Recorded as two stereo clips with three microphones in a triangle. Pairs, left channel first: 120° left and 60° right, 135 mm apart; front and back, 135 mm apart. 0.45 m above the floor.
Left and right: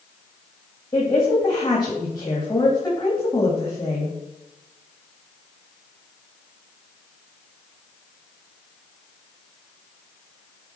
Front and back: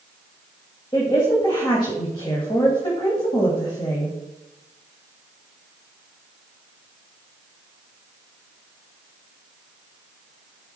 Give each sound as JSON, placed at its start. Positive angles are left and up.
{"t": 0.9, "sound": "a woman speaking", "azimuth_deg": 55, "distance_m": 2.5}